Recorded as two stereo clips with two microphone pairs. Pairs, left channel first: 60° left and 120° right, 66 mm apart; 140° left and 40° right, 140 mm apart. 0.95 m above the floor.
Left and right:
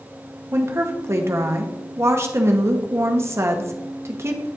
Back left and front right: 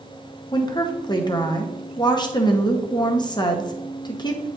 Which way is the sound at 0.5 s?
165° right.